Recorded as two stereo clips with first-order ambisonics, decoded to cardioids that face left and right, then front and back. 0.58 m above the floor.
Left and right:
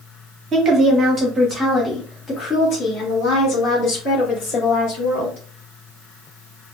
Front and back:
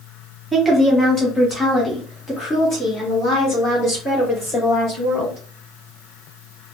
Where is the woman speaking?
100° right, 1.1 m; by 5.4 s 60° left, 2 m.